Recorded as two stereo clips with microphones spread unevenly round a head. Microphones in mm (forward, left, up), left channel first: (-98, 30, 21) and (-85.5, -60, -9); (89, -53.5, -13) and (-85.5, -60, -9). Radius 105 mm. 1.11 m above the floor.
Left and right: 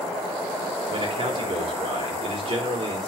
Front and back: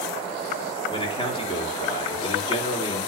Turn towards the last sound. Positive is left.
turn(degrees=-60)